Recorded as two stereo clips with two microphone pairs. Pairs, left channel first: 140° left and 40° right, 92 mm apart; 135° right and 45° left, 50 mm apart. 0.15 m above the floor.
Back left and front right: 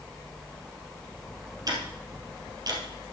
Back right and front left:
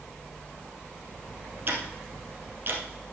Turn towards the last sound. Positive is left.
turn(degrees=5)